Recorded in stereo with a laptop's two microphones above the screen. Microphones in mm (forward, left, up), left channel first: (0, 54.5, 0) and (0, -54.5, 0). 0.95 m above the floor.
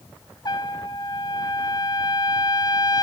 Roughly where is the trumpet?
Left.